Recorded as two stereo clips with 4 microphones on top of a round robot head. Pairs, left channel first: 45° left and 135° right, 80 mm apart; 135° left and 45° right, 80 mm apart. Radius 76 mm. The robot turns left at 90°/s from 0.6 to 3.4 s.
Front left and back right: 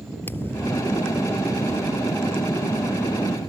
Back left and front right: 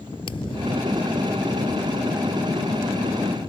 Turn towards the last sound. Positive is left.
turn(degrees=-140)